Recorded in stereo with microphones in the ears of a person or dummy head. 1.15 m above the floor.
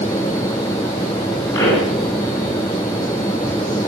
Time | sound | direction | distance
1.5 | a pop | 20° left (ahead or behind) | 4.5 m